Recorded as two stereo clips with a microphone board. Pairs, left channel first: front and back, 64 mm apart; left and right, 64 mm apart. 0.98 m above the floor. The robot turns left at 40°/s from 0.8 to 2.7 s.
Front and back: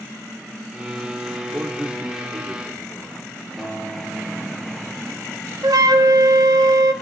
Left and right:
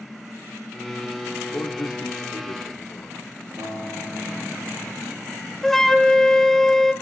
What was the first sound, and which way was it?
A man speaking, 120° left.